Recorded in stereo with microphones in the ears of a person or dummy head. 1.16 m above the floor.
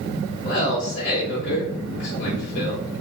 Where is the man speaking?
40° left (ahead or behind), 0.7 m.